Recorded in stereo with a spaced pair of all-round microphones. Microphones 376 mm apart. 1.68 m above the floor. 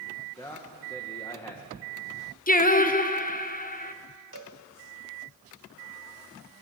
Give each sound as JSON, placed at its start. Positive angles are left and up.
{"t": 0.4, "sound": "a man speaking", "side_deg": 10, "distance_m": 2.0}
{"t": 2.5, "sound": "singing", "side_deg": 20, "distance_m": 1.1}
{"t": 4.3, "sound": "a cowbell", "side_deg": -55, "distance_m": 2.5}